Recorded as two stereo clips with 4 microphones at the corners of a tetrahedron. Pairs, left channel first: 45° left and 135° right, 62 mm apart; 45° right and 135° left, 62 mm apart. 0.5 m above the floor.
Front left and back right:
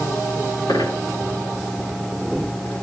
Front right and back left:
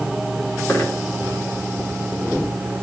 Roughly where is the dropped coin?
Ahead.